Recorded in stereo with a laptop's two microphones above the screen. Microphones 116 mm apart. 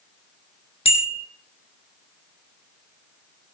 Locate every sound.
0.8 s a bicycle bell: 55° left (ahead or behind), 3 m